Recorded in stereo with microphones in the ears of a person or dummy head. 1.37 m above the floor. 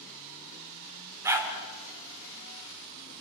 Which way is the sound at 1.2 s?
10° right (ahead or behind).